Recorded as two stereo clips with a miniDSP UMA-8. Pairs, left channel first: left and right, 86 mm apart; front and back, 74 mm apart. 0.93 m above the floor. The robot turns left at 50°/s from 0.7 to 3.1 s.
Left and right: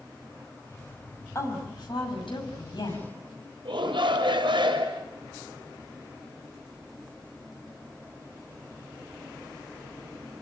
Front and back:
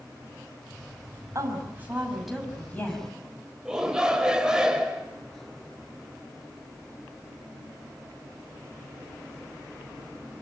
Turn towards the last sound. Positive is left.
turn(degrees=-100)